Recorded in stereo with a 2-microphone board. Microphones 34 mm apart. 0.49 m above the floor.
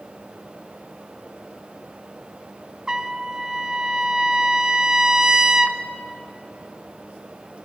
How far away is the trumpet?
About 0.5 m.